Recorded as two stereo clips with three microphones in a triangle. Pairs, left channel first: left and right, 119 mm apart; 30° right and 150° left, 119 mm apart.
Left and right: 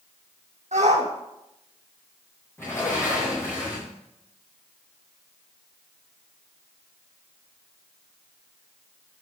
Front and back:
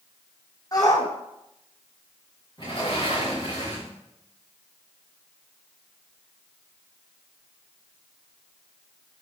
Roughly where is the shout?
Right.